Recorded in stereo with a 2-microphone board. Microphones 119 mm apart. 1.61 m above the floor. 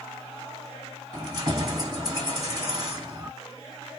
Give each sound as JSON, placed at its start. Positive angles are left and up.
{"t": 1.1, "sound": "keys jangling", "side_deg": -40, "distance_m": 1.6}